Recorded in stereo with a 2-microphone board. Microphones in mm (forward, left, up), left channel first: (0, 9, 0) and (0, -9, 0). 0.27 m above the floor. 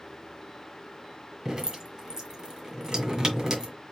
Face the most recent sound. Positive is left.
turn(degrees=-35)  # may be behind; listen again after turning